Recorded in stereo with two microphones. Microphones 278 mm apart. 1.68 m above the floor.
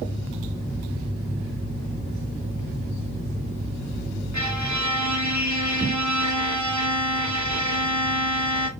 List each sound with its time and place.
4.3 s a violin: 85° right, 1.1 m